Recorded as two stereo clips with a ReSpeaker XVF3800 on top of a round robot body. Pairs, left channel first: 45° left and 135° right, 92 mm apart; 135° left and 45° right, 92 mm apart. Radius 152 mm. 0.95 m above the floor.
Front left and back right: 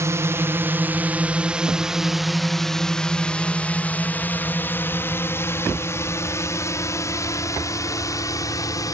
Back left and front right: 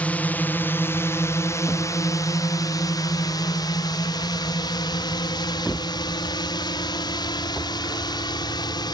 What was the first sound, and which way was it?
A drone, 165° right.